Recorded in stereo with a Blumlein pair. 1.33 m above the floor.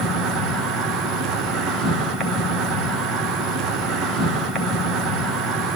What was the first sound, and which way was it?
An insect, 15° right.